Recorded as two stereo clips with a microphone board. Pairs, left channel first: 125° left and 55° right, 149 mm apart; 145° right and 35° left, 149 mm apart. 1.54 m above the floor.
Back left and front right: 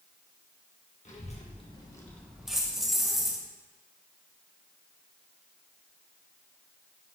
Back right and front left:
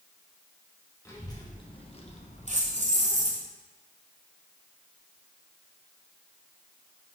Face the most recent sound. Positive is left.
turn(degrees=30)